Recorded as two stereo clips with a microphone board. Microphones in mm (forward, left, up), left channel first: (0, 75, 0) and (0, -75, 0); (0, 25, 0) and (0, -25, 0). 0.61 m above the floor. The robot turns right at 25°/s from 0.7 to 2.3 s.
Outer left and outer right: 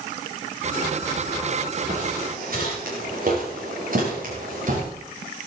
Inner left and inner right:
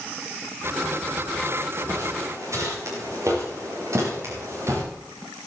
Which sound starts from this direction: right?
Footsteps, at 1.9 s.